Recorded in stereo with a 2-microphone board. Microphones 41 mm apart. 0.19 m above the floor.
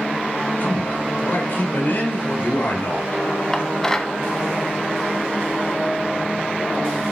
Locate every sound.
0.6 s a man speaking: 50° left (ahead or behind), 3.5 m
3.5 s dishes clattering: 10° left (ahead or behind), 0.9 m